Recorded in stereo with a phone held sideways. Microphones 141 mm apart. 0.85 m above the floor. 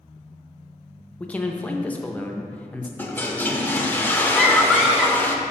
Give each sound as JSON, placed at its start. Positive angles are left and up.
{"t": 1.2, "sound": "a man speaking", "side_deg": 10, "distance_m": 0.5}
{"t": 3.0, "sound": "a toilet flushing", "side_deg": 15, "distance_m": 0.6}
{"t": 4.3, "sound": "a scream", "side_deg": -5, "distance_m": 0.9}